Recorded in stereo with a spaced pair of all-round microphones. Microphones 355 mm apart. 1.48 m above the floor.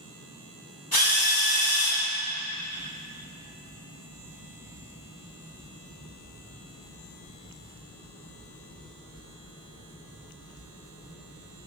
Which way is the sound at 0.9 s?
85° left.